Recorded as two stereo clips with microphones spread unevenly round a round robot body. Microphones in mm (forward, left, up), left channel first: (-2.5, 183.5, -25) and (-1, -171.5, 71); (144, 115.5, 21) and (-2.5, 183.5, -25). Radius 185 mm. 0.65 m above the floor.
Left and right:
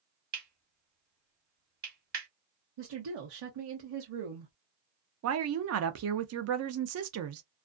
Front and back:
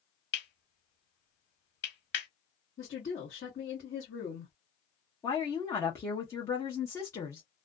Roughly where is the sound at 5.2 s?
Behind right.